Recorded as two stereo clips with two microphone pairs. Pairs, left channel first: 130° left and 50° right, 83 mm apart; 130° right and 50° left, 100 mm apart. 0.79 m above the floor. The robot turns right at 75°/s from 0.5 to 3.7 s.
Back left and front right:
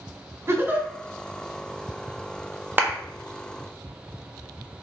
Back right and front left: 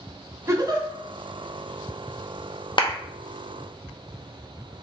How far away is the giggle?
About 1.0 m.